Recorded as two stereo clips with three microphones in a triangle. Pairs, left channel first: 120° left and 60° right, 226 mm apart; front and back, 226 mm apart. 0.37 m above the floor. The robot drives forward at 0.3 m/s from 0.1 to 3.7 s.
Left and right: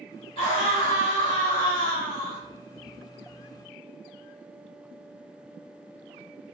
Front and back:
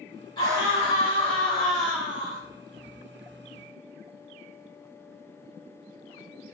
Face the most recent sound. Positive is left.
turn(degrees=125)